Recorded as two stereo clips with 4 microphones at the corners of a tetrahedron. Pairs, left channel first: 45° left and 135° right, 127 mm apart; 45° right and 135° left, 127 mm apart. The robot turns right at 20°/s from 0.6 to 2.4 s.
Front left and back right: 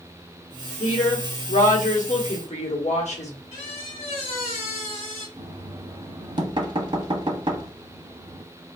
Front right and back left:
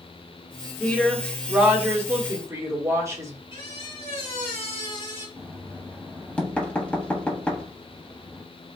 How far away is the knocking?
About 0.7 m.